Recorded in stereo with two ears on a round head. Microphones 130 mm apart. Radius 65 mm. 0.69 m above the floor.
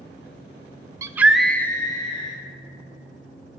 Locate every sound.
1.0 s a scream: 20° right (ahead or behind), 0.6 m; by 2.4 s 35° left (ahead or behind), 1.0 m